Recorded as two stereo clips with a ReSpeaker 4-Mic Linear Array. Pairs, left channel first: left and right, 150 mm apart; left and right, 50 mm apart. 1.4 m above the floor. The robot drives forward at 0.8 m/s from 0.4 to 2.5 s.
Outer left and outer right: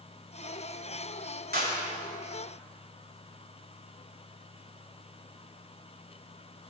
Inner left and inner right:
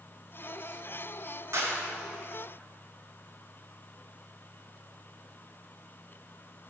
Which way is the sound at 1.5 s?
85° right.